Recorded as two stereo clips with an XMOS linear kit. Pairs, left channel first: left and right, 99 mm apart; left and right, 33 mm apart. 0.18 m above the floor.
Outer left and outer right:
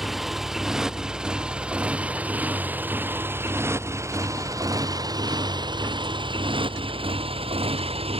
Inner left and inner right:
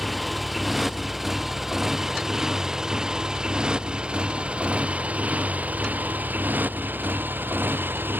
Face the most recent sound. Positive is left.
turn(degrees=-80)